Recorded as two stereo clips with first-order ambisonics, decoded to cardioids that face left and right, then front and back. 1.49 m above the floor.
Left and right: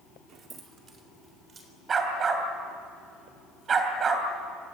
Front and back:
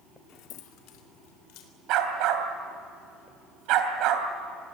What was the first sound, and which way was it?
Keys jangling, 25° right.